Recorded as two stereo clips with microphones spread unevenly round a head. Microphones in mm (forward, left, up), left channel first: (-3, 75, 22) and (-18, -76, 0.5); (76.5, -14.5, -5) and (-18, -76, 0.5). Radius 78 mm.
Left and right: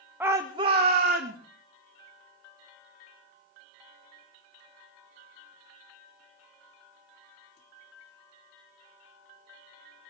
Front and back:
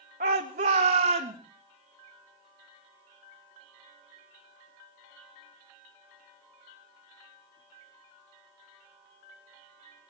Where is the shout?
175° right, 1.6 m; by 1.4 s 130° right, 2.5 m.